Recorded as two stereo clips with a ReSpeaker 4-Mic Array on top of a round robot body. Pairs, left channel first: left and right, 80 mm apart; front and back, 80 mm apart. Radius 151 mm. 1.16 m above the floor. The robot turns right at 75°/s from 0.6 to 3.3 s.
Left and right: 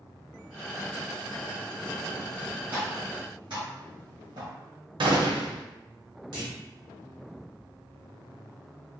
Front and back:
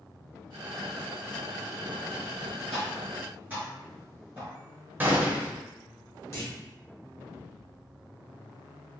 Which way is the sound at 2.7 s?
155° right.